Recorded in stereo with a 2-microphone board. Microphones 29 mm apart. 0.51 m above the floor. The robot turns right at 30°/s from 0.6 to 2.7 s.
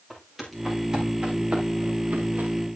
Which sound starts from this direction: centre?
Footsteps, at 0.1 s.